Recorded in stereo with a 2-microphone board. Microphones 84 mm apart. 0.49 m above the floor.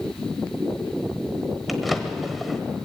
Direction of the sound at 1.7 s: Centre (ahead or behind).